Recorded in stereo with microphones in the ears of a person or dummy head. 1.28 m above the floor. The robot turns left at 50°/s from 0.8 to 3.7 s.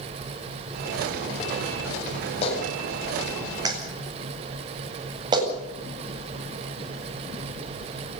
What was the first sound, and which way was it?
A clap, 35° left (ahead or behind).